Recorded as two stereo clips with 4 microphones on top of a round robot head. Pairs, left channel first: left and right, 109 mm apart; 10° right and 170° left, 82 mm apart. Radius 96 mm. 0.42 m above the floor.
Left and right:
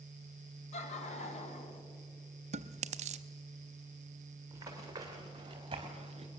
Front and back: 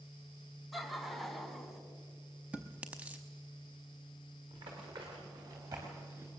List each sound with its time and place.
0.7 s laughter: 85° left, 3.5 m
2.5 s chewing: 110° right, 0.6 m
4.5 s running footsteps: 150° right, 5 m; by 6.3 s 125° right, 3 m